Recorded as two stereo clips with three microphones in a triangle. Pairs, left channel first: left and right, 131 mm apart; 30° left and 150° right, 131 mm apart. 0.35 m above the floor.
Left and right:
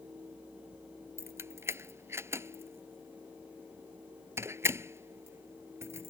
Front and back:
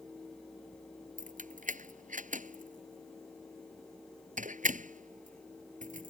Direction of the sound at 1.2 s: 160° right.